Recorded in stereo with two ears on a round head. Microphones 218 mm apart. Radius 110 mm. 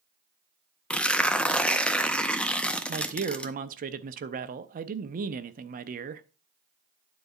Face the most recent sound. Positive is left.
turn(degrees=-35)  # may be behind; listen again after turning